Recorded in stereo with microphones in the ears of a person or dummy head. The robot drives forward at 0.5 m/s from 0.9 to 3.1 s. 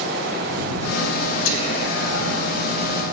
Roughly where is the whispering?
Left.